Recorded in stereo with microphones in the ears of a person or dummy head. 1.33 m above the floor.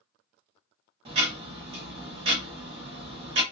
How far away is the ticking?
About 0.7 m.